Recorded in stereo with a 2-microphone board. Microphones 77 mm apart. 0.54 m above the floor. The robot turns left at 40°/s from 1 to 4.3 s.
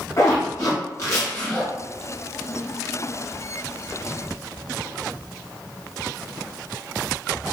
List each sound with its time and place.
0.2 s a zipper: 45° left (ahead or behind), 1.7 m; by 1.7 s 15° left (ahead or behind), 1.7 m